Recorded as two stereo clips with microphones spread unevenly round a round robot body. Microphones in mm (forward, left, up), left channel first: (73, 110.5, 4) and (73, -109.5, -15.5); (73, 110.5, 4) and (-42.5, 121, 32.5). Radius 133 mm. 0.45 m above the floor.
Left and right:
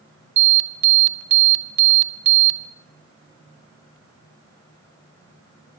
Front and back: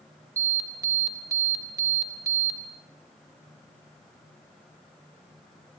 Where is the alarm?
110° right, 3 m.